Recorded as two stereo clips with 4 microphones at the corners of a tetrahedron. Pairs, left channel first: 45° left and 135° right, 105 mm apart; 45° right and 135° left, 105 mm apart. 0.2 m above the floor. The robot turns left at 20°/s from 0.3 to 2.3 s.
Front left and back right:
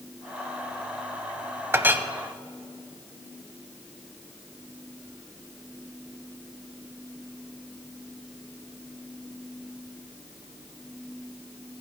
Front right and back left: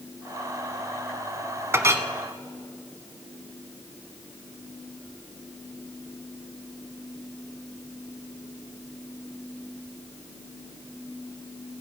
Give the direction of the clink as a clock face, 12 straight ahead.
6 o'clock.